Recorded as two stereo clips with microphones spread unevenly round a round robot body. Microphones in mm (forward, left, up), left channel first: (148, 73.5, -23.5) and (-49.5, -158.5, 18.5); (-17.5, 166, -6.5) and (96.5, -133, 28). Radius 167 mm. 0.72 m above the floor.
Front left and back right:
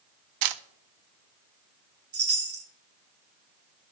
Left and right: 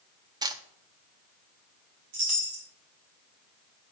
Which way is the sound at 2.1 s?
85° right.